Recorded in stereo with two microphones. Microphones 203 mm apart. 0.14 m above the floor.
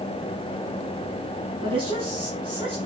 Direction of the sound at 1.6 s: 25° right (ahead or behind).